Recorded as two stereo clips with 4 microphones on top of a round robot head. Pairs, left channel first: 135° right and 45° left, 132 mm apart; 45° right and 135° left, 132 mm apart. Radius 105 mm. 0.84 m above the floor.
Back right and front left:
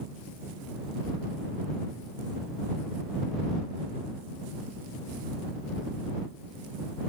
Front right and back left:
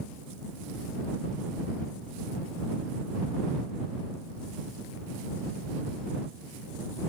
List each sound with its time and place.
Only background noise.